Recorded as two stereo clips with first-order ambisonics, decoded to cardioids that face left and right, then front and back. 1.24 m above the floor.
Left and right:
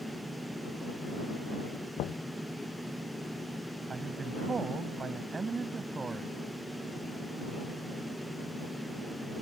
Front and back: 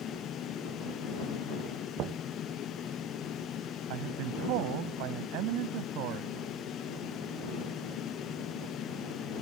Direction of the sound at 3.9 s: 165° right.